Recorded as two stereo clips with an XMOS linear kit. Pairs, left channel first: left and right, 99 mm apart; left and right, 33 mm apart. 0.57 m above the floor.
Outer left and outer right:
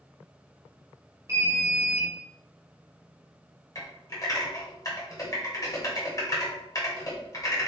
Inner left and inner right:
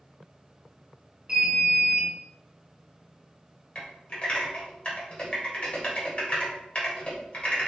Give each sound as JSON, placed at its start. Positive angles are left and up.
{"t": 1.3, "sound": "an alarm", "side_deg": -30, "distance_m": 1.3}
{"t": 3.8, "sound": "typing on a keyboard", "side_deg": 40, "distance_m": 1.3}